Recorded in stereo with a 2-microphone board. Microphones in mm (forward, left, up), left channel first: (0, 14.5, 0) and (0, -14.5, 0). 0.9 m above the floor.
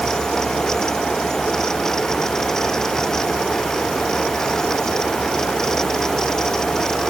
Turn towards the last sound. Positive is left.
No sound to turn to.